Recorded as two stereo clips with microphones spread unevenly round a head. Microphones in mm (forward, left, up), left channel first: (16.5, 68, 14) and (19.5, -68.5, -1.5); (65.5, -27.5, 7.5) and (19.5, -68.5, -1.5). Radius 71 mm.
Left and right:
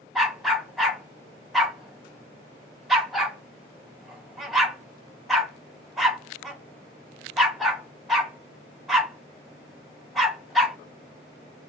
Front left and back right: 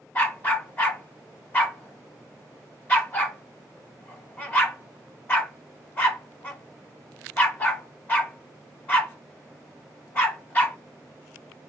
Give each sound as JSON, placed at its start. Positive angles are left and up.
{"t": 0.1, "sound": "a dog barking", "azimuth_deg": 5, "distance_m": 1.3}